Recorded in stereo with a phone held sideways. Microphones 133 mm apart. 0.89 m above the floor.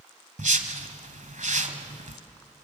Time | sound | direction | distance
0.4 | a whoosh | 70° right (ahead or behind) | 1.5 m